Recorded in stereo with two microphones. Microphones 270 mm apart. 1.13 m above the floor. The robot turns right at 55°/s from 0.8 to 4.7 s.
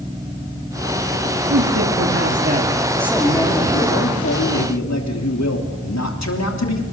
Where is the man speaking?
90° right, 3 m; by 6.8 s 85° left, 3 m.